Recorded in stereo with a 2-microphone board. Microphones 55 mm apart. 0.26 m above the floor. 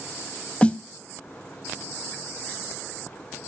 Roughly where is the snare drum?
Left.